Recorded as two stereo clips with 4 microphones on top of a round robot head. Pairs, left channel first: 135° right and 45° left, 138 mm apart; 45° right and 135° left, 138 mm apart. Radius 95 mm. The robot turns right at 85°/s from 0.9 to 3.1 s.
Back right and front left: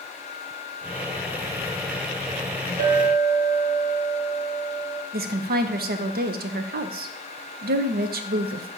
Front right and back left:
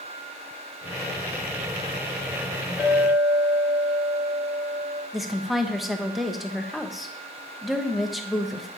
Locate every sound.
2.8 s a clink: 55° left, 2.5 m; by 5.0 s 80° left, 2.5 m
5.1 s a woman speaking: 50° left, 0.8 m